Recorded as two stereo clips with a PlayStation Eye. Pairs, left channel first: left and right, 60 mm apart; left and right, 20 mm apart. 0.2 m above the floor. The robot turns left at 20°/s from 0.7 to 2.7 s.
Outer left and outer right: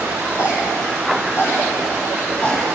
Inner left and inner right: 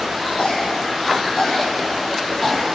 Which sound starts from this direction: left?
A cough, at 0.4 s.